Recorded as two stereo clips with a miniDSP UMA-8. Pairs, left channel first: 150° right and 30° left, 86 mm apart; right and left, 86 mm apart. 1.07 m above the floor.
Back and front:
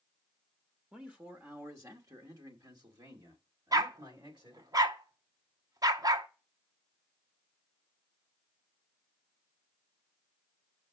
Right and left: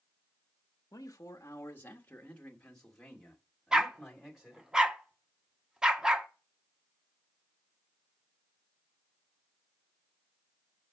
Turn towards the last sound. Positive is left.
turn(degrees=10)